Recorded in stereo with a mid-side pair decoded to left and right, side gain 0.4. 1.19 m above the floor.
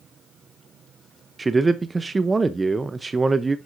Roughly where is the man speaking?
Ahead right.